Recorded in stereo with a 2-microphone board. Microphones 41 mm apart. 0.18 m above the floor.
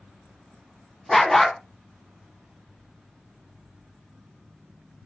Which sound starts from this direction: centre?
A dog barking, at 1.1 s.